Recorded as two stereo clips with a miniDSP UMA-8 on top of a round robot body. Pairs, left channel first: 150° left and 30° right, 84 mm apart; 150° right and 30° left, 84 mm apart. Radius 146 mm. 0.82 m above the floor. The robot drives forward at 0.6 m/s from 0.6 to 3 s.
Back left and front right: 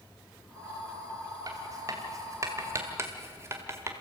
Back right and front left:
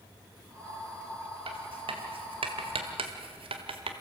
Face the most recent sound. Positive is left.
turn(degrees=30)